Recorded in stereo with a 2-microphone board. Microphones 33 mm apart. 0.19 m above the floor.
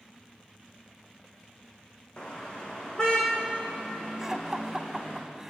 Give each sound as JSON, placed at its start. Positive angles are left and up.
{"t": 2.2, "sound": "a car horn", "side_deg": 25, "distance_m": 5.0}
{"t": 4.2, "sound": "laughter", "side_deg": -15, "distance_m": 1.1}